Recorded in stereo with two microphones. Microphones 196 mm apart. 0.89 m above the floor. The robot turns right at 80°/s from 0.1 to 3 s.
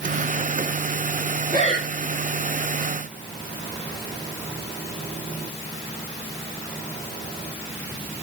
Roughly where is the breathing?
Right.